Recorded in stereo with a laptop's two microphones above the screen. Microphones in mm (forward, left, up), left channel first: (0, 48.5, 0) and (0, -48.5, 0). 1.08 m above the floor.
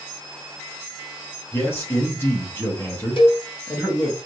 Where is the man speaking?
25° left (ahead or behind), 1.3 m.